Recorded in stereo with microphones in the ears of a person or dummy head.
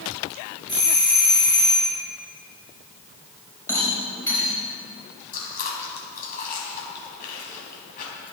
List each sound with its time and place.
0.7 s a doorbell: 15° right (ahead or behind), 4.5 m
3.7 s a rattle: 15° left (ahead or behind), 4 m
5.3 s chewing: 45° left (ahead or behind), 3 m